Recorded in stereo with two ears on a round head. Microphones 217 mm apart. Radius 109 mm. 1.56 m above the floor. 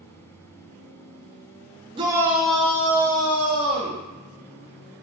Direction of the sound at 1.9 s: 20° right (ahead or behind).